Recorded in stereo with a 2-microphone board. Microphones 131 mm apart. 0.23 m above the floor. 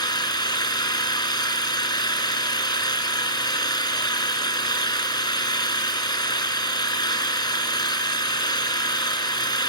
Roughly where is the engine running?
Left.